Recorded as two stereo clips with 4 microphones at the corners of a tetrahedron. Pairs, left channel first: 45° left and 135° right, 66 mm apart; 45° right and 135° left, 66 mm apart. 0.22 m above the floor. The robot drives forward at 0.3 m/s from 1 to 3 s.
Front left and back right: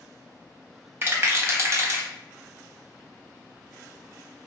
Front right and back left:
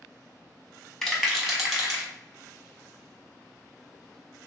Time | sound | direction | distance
1.0 | a rattle | 125° right | 0.6 m